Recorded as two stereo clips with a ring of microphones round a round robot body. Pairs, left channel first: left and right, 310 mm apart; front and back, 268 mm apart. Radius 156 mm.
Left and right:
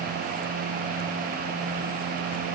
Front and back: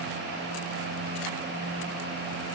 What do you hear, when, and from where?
Only background noise.